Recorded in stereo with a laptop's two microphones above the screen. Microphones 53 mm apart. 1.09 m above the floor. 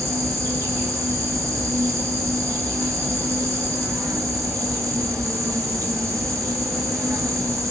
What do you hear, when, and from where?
0.0 s an insect: 80° right, 0.9 m